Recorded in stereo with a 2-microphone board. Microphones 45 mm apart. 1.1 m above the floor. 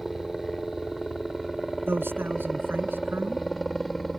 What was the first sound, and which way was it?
A helicopter, centre (ahead or behind).